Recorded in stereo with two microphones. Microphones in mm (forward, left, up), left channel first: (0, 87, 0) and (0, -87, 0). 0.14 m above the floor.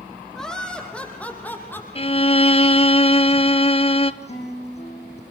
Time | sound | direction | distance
0.3 | laughter | 5° left (ahead or behind) | 7.5 m
1.9 | a violin | 35° left (ahead or behind) | 0.9 m
4.2 | a guitar | 40° left (ahead or behind) | 8.5 m